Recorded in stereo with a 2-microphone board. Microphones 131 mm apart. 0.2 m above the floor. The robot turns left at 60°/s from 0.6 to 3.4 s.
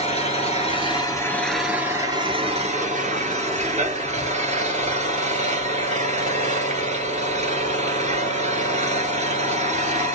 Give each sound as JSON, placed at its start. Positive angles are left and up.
{"t": 0.0, "sound": "an engine running", "azimuth_deg": 60, "distance_m": 1.2}